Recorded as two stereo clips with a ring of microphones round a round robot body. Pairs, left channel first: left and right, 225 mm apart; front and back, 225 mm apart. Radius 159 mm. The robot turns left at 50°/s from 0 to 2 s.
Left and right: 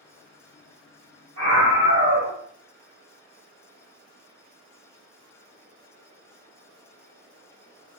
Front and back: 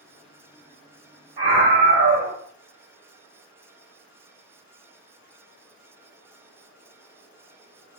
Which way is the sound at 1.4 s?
120° right.